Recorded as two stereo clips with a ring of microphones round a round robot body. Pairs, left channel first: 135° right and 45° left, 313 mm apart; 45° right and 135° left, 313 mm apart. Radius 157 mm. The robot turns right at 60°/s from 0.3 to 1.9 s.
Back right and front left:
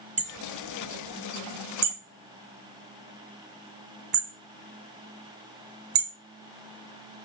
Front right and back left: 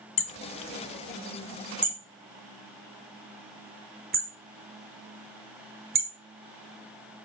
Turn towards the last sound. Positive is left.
turn(degrees=70)